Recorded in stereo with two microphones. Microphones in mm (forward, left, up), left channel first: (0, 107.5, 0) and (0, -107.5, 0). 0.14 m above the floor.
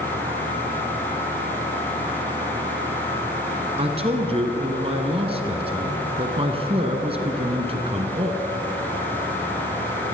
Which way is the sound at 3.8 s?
30° right (ahead or behind).